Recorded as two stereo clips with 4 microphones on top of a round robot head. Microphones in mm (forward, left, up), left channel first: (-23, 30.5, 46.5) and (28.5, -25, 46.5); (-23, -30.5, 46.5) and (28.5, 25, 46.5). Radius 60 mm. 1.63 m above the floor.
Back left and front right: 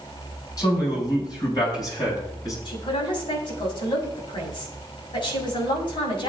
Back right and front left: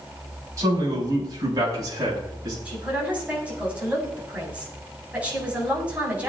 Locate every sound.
0.6 s a man speaking: 95° left, 7.5 m; by 2.5 s 90° left, 8.5 m
2.6 s a man speaking: 120° left, 6.5 m